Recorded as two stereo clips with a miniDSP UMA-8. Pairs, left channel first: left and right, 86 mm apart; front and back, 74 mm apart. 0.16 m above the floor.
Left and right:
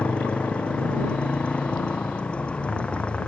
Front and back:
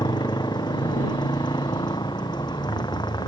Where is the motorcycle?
15° left.